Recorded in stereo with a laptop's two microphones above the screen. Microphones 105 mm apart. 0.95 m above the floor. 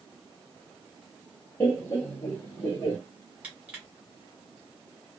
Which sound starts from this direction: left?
Laughter, at 1.6 s.